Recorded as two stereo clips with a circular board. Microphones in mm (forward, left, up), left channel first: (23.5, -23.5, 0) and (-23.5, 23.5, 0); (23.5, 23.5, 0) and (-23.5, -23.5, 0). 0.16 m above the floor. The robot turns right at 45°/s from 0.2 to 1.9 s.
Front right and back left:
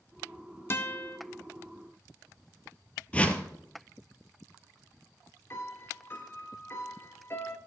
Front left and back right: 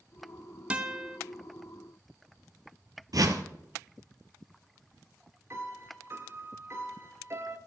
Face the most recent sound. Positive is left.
turn(degrees=-95)